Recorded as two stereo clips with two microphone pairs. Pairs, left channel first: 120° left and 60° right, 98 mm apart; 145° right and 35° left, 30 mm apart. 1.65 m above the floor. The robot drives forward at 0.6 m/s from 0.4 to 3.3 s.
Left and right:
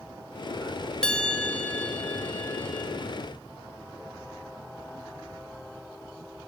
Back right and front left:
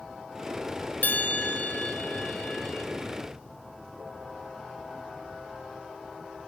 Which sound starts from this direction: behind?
A bell, at 1.0 s.